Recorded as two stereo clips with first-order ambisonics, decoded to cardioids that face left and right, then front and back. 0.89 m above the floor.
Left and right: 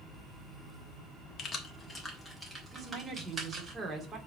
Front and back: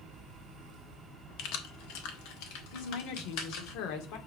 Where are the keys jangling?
30° left, 1.2 m; by 3.7 s 20° right, 3.5 m.